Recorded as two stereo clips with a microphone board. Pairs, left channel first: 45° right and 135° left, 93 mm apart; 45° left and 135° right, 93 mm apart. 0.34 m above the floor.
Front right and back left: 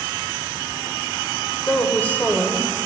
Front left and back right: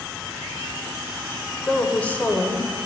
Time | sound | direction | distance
1.7 | a woman speaking | straight ahead | 1.2 m